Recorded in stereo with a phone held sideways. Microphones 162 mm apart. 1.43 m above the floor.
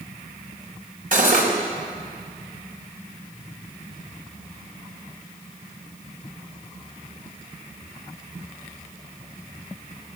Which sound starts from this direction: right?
Cutlery clinking, at 1.1 s.